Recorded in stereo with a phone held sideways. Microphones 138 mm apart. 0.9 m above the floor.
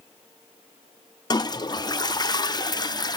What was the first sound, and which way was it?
A toilet flushing, 30° left (ahead or behind).